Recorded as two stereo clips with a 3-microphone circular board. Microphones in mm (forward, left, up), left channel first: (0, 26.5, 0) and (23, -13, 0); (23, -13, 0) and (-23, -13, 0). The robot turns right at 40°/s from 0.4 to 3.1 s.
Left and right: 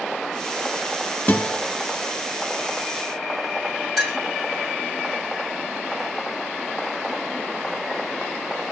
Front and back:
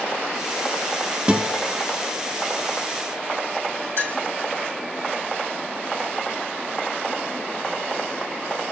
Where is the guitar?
130° left, 0.8 m; by 1.6 s 145° left, 0.8 m.